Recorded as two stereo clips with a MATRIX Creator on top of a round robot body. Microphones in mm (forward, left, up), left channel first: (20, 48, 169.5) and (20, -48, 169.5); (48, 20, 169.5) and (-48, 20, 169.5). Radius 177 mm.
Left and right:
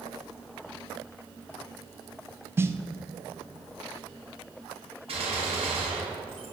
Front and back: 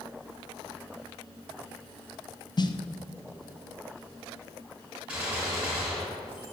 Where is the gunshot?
100° right, 3.5 m.